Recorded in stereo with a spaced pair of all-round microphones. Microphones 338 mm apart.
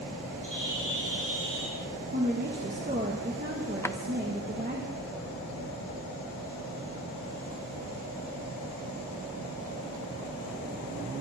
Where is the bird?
65° right (ahead or behind), 9 m.